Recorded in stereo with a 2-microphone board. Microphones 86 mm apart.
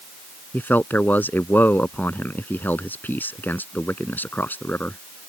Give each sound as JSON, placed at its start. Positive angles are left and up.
{"t": 0.5, "sound": "a man speaking", "side_deg": 20}